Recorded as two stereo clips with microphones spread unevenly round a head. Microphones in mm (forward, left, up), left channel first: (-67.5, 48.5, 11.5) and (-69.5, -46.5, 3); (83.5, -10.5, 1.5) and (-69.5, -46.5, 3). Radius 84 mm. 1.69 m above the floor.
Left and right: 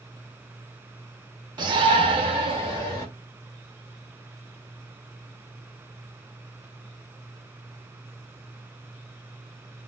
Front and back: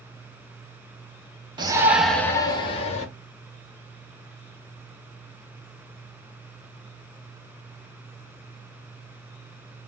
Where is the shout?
115° right, 0.9 m; by 3.0 s 30° right, 1.2 m.